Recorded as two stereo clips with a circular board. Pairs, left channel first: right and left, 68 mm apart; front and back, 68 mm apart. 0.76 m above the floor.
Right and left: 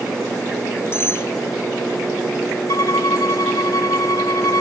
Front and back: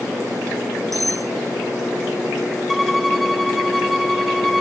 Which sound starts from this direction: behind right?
Cutlery clinking, at 0.9 s.